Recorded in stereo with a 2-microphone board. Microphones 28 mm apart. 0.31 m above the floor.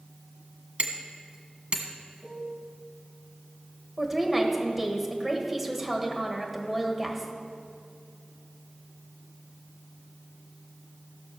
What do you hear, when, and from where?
0.8 s hammering: 50° right (ahead or behind), 1.2 m
2.2 s a piano: 15° left (ahead or behind), 3.5 m
4.0 s a woman speaking: 15° right (ahead or behind), 1.6 m